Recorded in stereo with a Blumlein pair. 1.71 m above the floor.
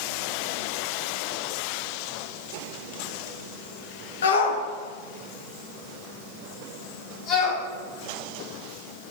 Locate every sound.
4.2 s a shout: 65° left, 1.4 m; by 7.6 s 25° left, 3 m